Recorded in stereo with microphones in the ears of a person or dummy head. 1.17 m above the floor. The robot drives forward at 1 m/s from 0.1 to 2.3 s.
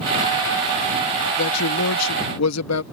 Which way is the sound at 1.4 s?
70° left (ahead or behind).